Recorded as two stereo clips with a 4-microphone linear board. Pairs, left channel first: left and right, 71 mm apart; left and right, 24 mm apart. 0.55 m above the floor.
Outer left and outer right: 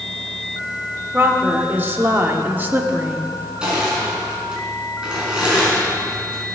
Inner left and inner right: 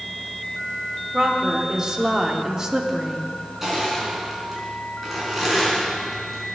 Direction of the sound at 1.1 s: 30° right (ahead or behind).